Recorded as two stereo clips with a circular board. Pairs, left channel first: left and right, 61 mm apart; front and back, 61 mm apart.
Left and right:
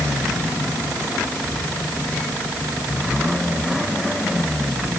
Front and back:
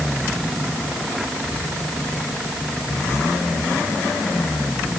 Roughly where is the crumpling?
I don't hear crumpling.